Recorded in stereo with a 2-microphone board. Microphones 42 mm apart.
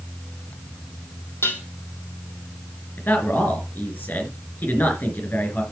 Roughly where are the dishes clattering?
Left.